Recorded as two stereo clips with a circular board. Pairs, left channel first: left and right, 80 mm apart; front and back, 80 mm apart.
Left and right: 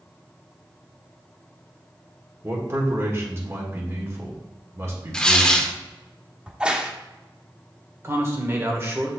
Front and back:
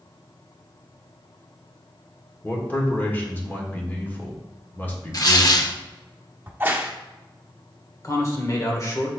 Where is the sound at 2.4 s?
55° right, 1.6 m.